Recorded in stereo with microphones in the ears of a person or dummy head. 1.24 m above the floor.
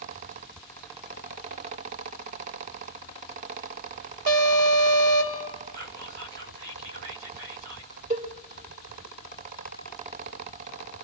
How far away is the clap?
I don't hear a clap.